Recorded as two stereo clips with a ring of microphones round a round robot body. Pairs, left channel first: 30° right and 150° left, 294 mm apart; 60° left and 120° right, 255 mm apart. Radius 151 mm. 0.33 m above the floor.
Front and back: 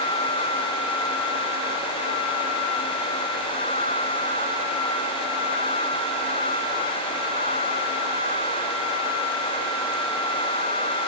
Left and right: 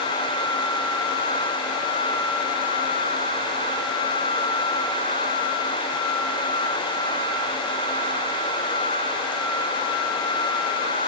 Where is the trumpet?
No trumpet in this recording.